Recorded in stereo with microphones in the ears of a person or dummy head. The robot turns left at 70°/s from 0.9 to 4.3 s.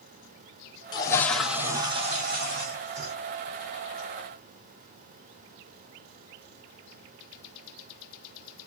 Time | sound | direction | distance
0.9 | a toilet flushing | 30° left | 0.9 m